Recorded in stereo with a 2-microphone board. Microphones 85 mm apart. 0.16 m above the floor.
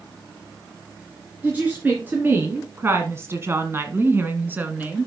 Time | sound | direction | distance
1.4 | a woman speaking | 20° right (ahead or behind) | 2 m